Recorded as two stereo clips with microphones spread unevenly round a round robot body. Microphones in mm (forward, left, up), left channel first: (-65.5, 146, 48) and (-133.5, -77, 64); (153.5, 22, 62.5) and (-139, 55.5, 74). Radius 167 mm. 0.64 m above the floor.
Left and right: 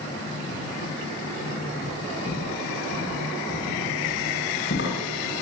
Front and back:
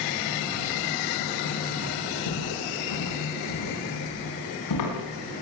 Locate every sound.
2.3 s footsteps: 5° left, 9.5 m; by 5.3 s 20° left, 10 m